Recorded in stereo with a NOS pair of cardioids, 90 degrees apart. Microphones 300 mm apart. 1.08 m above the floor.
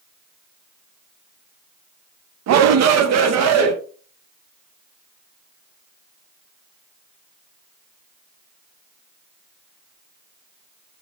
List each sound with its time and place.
2.5 s a shout: 60° right, 0.6 m; by 3.7 s 55° right, 1.3 m